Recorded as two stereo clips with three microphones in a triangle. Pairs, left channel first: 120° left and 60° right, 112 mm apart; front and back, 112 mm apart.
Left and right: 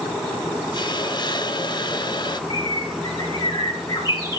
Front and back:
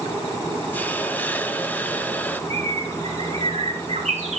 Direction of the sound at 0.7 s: 75° left.